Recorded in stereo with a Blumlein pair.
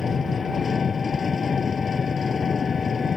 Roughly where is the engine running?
Ahead.